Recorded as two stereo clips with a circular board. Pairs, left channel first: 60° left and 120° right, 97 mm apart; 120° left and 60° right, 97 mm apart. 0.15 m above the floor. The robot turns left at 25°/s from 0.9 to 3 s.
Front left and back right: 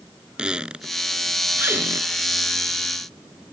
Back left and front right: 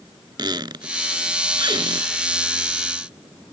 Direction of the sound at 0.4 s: 40° right.